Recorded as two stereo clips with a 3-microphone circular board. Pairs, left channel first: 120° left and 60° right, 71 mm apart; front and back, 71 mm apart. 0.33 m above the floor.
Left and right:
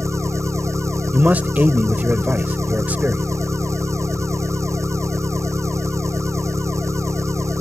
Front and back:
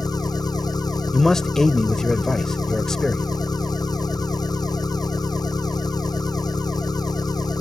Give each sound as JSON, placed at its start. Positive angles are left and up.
{"t": 0.0, "sound": "an engine running", "azimuth_deg": -15}
{"t": 1.1, "sound": "a man speaking", "azimuth_deg": -75}